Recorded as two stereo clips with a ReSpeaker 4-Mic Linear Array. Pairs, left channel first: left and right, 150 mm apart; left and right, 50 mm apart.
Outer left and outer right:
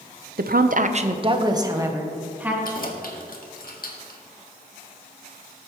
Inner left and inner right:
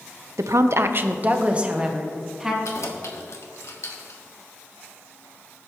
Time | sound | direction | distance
0.4 | a woman speaking | 85° right | 0.7 m
2.6 | keys jangling | 70° left (ahead or behind) | 1.5 m